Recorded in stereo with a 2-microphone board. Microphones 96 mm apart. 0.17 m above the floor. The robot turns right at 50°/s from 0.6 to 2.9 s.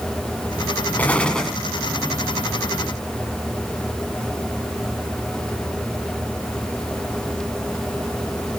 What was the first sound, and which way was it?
An explosion, 15° left (ahead or behind).